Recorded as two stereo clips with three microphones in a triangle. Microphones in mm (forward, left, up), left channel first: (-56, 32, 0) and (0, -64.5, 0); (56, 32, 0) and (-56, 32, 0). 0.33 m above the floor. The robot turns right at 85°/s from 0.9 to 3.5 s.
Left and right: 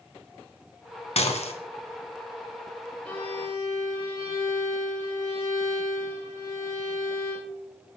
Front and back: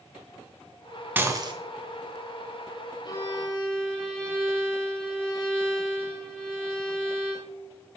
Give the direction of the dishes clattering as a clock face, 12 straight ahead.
8 o'clock.